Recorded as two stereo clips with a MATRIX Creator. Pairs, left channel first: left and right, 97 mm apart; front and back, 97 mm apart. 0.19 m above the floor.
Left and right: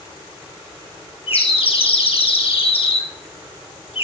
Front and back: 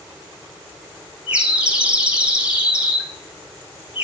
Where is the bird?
100° left, 1.7 m.